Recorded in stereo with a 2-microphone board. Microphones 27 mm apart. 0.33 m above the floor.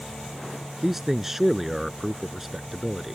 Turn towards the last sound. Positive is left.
turn(degrees=-10)  # may be behind; listen again after turning